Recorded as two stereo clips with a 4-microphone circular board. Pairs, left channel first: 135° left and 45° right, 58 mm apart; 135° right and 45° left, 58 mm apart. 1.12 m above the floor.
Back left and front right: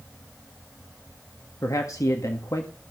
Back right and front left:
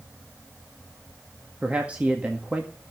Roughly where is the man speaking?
Behind left.